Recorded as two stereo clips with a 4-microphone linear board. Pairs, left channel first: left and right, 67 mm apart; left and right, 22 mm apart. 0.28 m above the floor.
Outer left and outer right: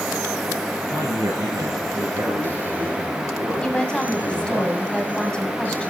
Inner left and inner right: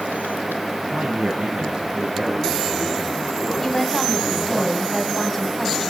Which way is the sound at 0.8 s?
75° right (ahead or behind).